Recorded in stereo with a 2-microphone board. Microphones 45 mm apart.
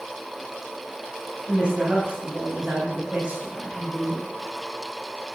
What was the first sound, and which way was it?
A woman speaking, 20° right (ahead or behind).